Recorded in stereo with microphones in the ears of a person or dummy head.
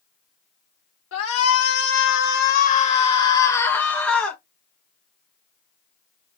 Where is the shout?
80° left, 1.0 m; by 4.4 s 5° left (ahead or behind), 1.4 m.